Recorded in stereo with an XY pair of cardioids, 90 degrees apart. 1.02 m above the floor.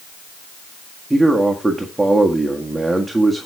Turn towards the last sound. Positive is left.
turn(degrees=-5)